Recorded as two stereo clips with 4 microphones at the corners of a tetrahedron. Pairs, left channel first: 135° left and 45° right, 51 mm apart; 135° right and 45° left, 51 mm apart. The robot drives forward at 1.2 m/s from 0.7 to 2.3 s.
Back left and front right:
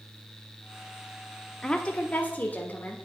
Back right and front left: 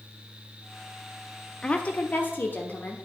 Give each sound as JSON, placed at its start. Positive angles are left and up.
{"t": 1.6, "sound": "a woman speaking", "azimuth_deg": -165, "distance_m": 0.7}